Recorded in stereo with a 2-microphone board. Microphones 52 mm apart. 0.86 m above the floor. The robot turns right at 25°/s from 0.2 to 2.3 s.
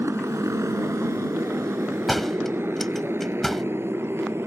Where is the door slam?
Centre (ahead or behind); by 3.6 s 5° left (ahead or behind).